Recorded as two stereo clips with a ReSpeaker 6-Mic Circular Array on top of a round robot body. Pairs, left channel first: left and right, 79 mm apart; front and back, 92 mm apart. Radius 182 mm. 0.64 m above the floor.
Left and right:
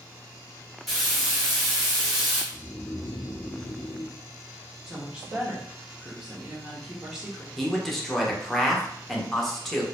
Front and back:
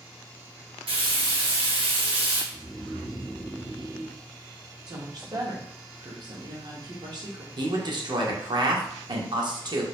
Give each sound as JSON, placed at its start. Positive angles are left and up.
{"t": 0.9, "sound": "frying", "azimuth_deg": 180, "distance_m": 1.1}
{"t": 2.5, "sound": "snoring", "azimuth_deg": 90, "distance_m": 0.6}
{"t": 4.9, "sound": "a woman speaking", "azimuth_deg": -170, "distance_m": 1.4}
{"t": 7.6, "sound": "a man speaking", "azimuth_deg": 175, "distance_m": 1.1}